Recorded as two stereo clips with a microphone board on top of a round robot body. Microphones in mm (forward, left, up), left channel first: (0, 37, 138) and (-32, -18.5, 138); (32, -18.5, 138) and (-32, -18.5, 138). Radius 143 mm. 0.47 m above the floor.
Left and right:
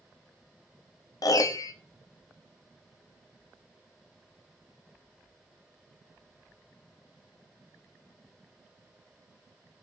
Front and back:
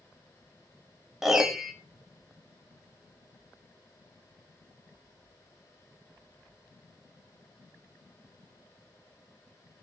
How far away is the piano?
About 0.6 m.